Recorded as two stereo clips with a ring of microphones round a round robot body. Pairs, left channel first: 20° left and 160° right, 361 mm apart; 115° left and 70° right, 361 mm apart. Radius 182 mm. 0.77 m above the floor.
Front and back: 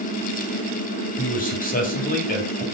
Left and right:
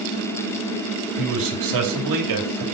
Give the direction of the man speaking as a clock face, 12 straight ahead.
1 o'clock.